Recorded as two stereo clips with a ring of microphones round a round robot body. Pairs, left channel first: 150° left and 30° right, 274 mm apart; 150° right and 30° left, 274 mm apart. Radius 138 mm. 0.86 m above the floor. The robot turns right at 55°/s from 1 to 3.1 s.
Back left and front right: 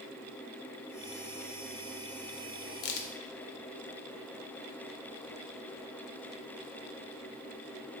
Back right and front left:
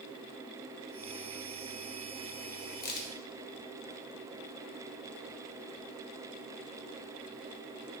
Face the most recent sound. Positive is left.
turn(degrees=165)